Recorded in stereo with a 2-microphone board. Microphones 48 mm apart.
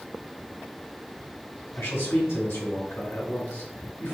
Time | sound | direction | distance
1.8 | a man speaking | 70° left (ahead or behind) | 2 m